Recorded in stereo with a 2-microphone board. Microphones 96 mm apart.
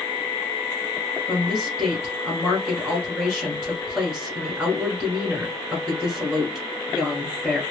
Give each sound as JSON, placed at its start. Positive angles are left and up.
{"t": 1.3, "sound": "a woman speaking", "side_deg": -5, "distance_m": 1.5}